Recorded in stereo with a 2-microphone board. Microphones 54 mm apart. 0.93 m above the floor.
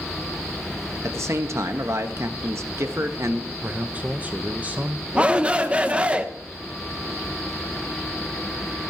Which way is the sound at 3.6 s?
25° right (ahead or behind).